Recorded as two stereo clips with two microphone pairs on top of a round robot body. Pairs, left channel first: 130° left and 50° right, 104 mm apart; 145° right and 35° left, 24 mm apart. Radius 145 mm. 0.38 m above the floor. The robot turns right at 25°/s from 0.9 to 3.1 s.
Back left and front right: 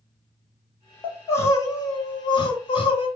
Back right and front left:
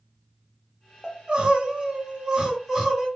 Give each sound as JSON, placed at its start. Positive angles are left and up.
{"t": 1.0, "sound": "crying", "azimuth_deg": 65, "distance_m": 1.9}